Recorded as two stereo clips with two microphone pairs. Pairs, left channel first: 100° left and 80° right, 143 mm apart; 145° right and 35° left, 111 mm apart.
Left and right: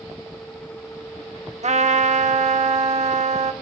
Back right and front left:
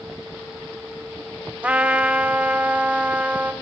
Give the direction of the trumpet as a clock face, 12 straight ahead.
1 o'clock.